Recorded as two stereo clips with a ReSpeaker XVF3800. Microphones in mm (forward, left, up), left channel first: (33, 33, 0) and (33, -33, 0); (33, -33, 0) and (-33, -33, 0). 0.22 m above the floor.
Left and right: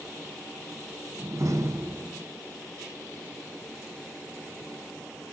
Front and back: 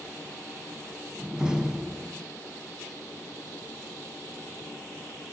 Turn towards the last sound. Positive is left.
turn(degrees=-105)